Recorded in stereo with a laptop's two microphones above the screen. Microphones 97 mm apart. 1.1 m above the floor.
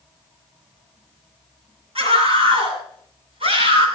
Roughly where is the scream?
Right.